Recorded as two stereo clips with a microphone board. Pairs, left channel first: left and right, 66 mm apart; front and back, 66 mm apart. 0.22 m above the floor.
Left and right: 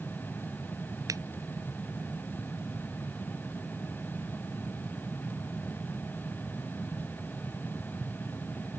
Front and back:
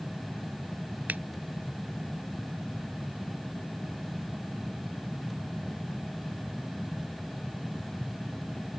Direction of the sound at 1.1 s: 115° right.